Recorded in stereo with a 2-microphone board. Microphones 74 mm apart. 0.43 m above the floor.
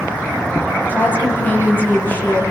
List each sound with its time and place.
0.9 s a woman speaking: 25° left (ahead or behind), 9.5 m